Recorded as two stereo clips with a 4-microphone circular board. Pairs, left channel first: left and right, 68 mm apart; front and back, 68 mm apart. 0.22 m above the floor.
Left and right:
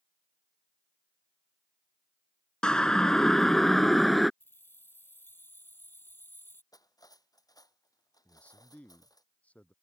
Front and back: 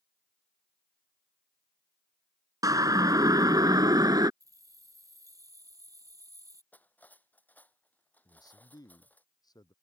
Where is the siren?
165° left; by 4.3 s straight behind.